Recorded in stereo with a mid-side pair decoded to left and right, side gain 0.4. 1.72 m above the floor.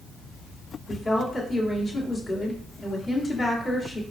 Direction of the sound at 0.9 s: 45° left.